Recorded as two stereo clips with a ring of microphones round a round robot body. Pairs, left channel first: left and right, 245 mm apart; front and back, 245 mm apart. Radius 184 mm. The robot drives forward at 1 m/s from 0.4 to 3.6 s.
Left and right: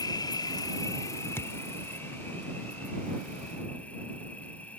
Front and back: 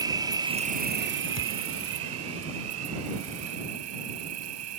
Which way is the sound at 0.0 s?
135° left.